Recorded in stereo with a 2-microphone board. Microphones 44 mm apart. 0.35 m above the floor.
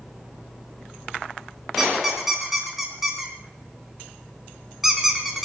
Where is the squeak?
5° right (ahead or behind), 2.5 m.